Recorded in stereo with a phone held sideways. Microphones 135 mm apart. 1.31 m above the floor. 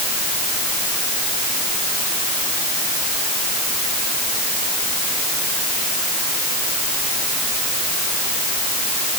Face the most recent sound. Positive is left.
No sound to turn to.